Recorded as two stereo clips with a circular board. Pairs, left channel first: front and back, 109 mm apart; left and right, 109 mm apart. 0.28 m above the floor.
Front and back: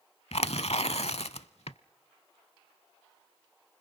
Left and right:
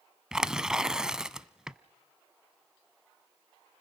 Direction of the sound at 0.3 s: 5° right.